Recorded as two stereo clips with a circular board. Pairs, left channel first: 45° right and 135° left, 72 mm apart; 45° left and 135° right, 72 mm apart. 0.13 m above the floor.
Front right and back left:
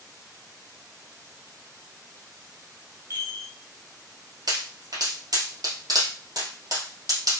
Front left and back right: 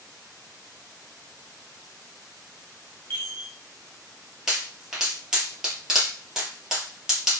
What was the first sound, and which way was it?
A chime, 95° left.